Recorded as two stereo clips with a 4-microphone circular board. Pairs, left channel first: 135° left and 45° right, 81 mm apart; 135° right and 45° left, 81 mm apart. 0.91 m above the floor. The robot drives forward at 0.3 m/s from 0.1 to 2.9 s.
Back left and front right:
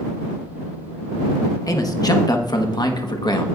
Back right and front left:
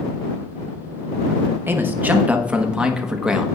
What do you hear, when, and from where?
1.7 s a man speaking: 100° left, 1.0 m; by 3.5 s 125° left, 1.1 m